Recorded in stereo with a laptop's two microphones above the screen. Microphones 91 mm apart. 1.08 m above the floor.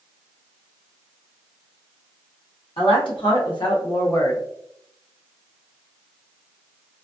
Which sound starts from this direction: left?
A woman speaking, at 2.8 s.